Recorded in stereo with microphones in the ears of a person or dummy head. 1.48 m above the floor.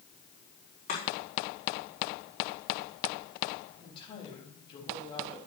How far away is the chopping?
About 4 m.